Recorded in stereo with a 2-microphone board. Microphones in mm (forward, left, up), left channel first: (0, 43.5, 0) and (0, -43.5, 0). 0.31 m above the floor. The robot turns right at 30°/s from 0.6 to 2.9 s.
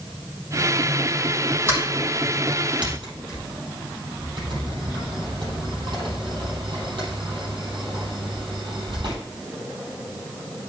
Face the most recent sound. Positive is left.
turn(degrees=-65)  # may be behind; listen again after turning